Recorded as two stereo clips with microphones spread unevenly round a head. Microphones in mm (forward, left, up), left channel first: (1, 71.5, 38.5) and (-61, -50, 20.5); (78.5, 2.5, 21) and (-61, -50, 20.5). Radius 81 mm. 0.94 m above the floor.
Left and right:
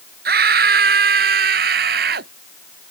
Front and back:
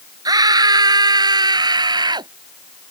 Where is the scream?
95° right.